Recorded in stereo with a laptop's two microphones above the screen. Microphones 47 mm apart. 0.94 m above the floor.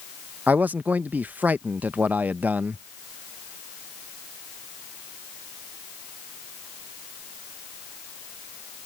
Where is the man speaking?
40° right (ahead or behind).